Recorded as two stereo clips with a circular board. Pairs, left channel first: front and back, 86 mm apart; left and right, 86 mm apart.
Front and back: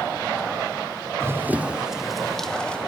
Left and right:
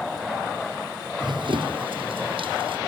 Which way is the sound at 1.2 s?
120° right.